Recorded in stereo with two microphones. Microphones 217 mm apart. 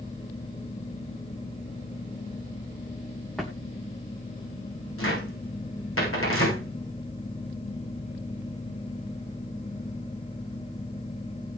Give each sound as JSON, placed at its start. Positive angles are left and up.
{"t": 3.4, "sound": "a drawer", "side_deg": 0, "distance_m": 2.5}
{"t": 5.0, "sound": "a cupboard door", "side_deg": 80, "distance_m": 7.5}